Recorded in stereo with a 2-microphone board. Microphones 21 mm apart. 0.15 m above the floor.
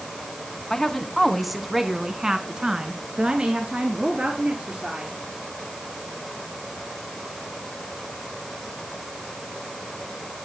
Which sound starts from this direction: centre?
A woman speaking, at 0.7 s.